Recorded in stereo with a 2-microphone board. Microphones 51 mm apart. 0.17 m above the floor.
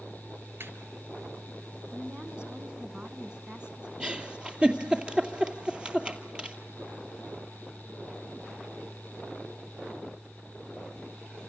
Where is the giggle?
20° right (ahead or behind), 2.5 m.